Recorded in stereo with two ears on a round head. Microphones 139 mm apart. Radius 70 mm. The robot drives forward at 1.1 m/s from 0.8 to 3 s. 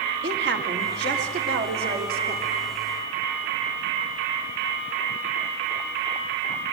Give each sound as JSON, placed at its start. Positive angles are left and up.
{"t": 0.2, "sound": "a woman speaking", "side_deg": -80, "distance_m": 3.5}